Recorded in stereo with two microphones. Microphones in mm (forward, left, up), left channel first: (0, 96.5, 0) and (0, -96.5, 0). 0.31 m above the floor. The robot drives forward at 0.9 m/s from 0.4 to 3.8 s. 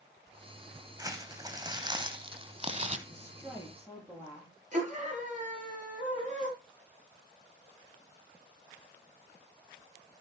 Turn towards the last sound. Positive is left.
turn(degrees=-40)  # may be behind; listen again after turning